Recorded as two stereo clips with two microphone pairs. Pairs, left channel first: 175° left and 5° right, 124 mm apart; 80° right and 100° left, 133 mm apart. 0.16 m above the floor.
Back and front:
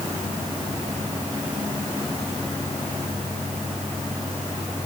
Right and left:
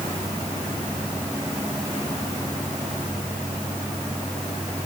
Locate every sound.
Only background noise.